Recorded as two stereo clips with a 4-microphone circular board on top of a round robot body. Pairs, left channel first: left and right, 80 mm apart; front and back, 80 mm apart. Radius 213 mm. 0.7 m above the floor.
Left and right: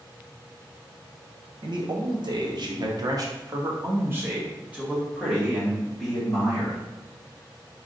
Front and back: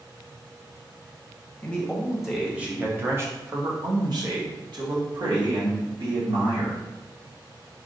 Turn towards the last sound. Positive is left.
turn(degrees=175)